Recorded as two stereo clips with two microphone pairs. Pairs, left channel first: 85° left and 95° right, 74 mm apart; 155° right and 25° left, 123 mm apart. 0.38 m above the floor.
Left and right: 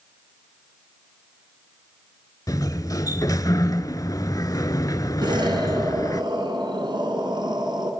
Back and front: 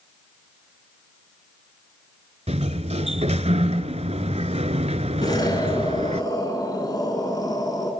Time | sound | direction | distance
2.5 | a sliding door | 50° left | 0.9 m
5.2 | an explosion | 100° right | 3 m